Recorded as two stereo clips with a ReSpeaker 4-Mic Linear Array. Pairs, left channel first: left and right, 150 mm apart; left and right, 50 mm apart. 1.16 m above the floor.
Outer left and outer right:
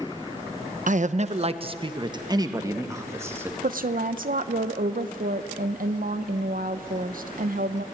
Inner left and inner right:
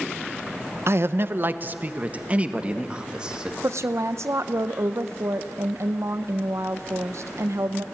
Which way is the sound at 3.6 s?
70° right (ahead or behind).